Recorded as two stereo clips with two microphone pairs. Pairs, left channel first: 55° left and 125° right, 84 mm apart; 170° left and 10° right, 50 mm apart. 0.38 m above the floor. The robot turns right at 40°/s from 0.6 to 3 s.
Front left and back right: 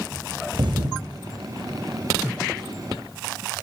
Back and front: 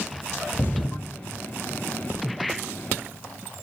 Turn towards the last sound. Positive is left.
turn(degrees=-45)